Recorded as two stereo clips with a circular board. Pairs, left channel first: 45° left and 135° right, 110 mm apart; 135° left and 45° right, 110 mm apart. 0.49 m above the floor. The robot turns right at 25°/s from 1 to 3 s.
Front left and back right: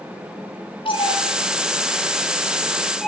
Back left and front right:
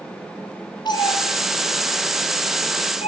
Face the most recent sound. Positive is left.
turn(degrees=135)